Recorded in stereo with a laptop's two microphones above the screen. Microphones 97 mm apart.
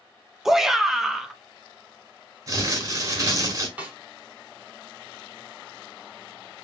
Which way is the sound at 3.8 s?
15° right (ahead or behind).